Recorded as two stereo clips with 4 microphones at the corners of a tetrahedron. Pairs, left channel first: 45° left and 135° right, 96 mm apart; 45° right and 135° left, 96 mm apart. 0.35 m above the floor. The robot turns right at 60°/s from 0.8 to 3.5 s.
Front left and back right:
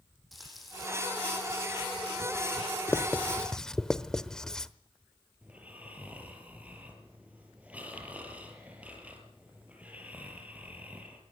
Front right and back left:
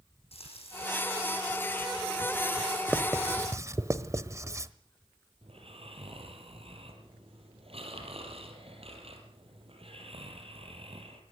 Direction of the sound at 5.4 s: 150° left.